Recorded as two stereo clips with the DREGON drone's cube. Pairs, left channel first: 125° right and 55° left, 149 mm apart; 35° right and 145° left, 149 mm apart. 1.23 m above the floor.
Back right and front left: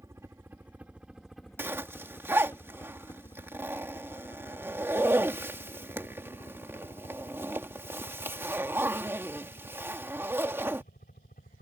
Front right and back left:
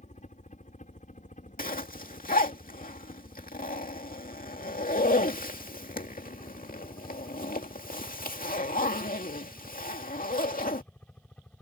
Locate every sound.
0.0 s a helicopter: 15° right; by 11.6 s 115° right
1.6 s a zipper: 20° right